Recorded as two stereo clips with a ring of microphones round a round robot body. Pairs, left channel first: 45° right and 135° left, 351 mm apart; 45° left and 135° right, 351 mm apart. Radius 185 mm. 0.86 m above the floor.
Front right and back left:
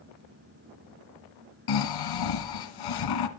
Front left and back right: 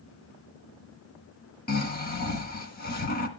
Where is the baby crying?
I don't hear a baby crying.